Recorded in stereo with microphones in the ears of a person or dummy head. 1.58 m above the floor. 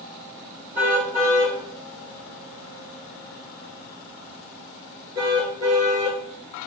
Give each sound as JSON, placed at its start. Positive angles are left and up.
{"t": 0.8, "sound": "a car horn", "side_deg": -10, "distance_m": 7.5}